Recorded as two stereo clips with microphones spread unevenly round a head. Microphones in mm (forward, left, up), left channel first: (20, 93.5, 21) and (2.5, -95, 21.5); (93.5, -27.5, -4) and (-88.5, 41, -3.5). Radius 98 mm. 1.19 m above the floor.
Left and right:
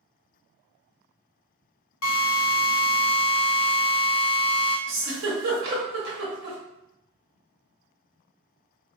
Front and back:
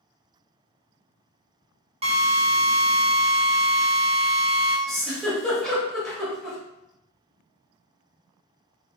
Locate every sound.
2.0 s a drill: 100° left, 0.5 m
4.9 s a giggle: 110° right, 0.9 m